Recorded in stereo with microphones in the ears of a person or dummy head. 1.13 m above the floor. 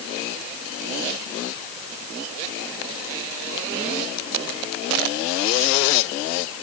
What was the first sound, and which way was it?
Only background noise.